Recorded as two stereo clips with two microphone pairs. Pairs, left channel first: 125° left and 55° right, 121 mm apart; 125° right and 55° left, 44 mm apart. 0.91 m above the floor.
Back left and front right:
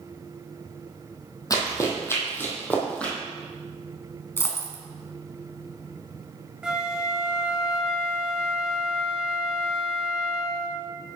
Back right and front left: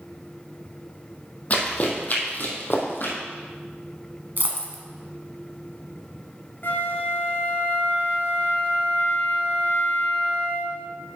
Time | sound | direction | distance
1.5 | running footsteps | 175° right | 2 m
4.4 | a dropped coin | 60° left | 1.2 m
6.6 | a flute | 135° right | 0.9 m